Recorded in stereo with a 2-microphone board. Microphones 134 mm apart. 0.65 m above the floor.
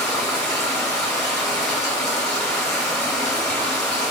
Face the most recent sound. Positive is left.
turn(degrees=5)  # may be behind; listen again after turning